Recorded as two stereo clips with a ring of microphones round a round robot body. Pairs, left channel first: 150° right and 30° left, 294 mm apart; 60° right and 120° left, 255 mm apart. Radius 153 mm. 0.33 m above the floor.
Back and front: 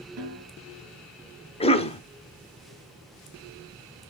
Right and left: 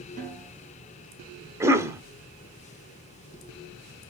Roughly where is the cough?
Behind.